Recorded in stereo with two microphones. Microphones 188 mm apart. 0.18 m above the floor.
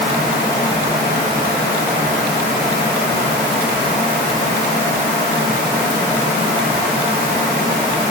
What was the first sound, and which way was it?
Only background noise.